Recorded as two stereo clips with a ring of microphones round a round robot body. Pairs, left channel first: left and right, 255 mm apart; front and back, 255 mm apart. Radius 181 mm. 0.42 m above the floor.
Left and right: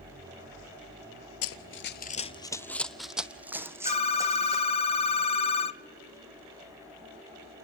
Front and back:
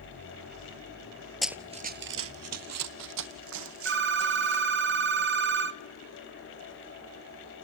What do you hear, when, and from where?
1.4 s running footsteps: 90° left, 0.6 m; by 4.8 s 165° right, 2.5 m
3.9 s a phone ringing: 155° left, 0.7 m